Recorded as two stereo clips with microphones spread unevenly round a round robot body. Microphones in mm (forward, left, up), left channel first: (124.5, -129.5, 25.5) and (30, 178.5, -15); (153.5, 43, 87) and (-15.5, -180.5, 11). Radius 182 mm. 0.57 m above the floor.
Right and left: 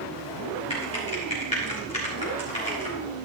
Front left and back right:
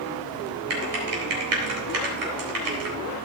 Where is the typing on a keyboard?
150° right, 3.5 m.